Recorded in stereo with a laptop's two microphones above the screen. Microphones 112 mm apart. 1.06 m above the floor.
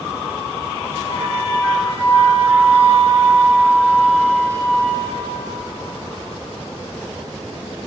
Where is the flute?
20° left (ahead or behind), 2.5 m.